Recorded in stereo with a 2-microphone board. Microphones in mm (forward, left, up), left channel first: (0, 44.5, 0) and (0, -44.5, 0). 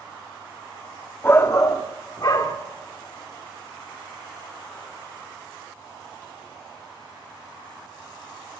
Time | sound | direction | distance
1.2 | a shout | 25° left (ahead or behind) | 0.8 m